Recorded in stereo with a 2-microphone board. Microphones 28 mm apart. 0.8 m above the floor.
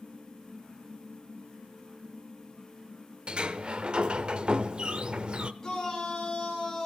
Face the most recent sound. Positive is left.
turn(degrees=20)  # may be behind; listen again after turning